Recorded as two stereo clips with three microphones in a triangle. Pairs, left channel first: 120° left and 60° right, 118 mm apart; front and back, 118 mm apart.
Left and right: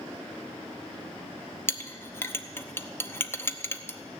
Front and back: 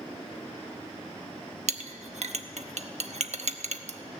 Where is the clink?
170° right, 0.8 m.